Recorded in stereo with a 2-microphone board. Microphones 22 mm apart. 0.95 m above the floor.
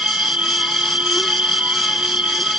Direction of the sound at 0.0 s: 75° right (ahead or behind).